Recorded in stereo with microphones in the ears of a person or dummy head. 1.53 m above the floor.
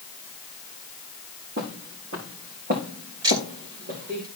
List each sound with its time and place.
1.6 s footsteps: 65° right (ahead or behind), 4 m; by 4.2 s 50° right (ahead or behind), 5 m
3.2 s ticking: 20° right (ahead or behind), 2 m